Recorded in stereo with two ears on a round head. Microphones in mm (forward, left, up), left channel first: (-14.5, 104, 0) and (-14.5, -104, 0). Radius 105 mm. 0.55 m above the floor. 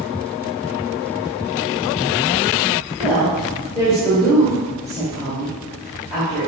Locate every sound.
3.0 s a woman speaking: centre (ahead or behind), 1.6 m